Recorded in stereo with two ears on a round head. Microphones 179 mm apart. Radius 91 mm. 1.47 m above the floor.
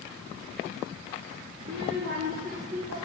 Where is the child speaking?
60° right (ahead or behind), 2 m; by 3.1 s 30° right (ahead or behind), 1.8 m.